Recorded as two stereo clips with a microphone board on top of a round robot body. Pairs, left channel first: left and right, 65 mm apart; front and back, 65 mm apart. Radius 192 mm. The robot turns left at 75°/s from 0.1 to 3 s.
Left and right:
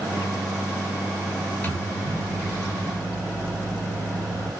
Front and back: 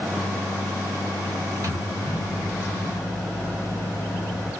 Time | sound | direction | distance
1.6 | a microwave | 150° left | 1.7 m